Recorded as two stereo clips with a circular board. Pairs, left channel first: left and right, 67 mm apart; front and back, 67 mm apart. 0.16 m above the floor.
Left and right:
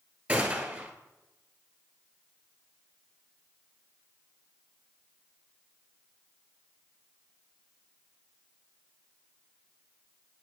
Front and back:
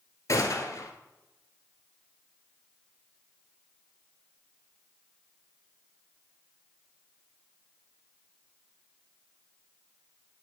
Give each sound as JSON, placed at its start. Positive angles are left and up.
{"t": 0.3, "sound": "a gunshot", "azimuth_deg": -25, "distance_m": 1.2}